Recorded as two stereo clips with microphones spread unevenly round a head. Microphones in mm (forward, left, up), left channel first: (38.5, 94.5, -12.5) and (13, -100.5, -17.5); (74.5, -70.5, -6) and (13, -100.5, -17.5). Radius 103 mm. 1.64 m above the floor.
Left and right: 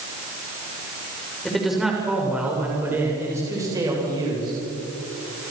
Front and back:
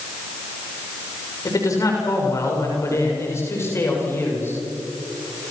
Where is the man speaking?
5° right, 6 m; by 4.6 s 30° right, 7 m.